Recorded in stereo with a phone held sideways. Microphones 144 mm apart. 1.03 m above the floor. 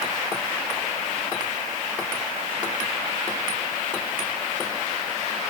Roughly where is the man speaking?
I don't hear a man speaking.